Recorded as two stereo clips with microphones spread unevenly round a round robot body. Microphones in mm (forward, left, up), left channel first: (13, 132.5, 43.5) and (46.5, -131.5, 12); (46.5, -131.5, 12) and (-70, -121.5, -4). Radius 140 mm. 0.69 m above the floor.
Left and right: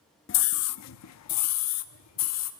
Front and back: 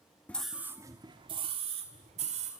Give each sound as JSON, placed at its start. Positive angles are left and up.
{"t": 0.3, "sound": "a scream", "azimuth_deg": 80, "distance_m": 0.7}